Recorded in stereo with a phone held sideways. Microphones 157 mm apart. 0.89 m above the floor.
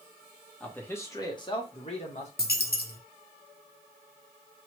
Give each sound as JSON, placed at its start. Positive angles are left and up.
{"t": 0.6, "sound": "a man speaking", "side_deg": 5, "distance_m": 1.0}
{"t": 2.4, "sound": "a dropped coin", "side_deg": 80, "distance_m": 0.7}